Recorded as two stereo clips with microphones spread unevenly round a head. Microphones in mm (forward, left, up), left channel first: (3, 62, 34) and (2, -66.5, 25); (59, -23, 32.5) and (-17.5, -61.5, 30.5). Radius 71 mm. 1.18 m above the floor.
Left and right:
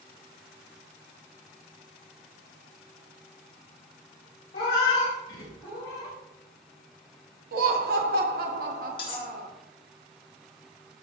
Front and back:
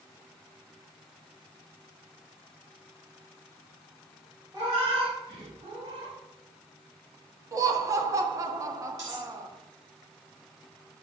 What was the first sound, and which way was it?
A cat meowing, 145° left.